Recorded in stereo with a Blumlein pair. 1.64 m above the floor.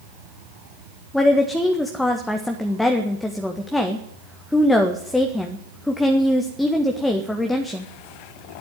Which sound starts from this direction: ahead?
A woman speaking, at 1.1 s.